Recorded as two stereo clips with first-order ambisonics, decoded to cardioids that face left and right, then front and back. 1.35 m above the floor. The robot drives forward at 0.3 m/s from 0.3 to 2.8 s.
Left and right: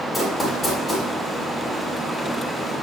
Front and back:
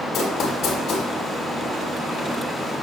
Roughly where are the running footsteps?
Ahead left.